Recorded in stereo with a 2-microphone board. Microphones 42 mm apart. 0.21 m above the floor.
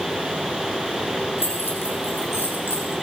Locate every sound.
1.4 s keys jangling: 70° left (ahead or behind), 7 m; by 2.9 s 80° left, 6 m